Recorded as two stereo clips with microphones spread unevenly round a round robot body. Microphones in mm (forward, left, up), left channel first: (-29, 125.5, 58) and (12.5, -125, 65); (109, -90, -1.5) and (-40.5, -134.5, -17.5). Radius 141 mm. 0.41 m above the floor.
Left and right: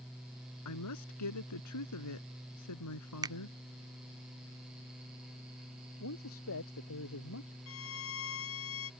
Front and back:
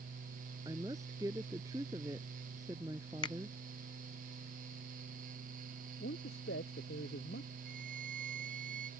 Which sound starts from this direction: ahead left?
A man speaking, at 6.0 s.